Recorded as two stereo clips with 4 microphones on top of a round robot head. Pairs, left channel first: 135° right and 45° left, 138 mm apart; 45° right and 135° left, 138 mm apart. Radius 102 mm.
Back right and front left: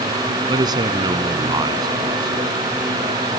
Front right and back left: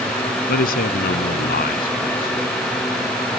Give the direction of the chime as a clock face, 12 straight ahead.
I don't hear a chime.